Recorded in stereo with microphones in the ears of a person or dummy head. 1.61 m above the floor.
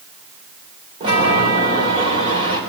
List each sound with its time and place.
1.0 s a chime: 35° right (ahead or behind), 4 m